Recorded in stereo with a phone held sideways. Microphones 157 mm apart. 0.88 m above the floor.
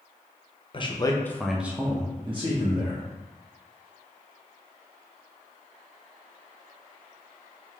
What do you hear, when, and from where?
0.7 s a man speaking: 35° left (ahead or behind), 0.6 m; by 3.1 s 50° right (ahead or behind), 1.0 m